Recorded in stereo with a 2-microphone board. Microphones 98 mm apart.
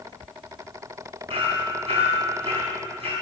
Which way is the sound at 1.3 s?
75° right (ahead or behind).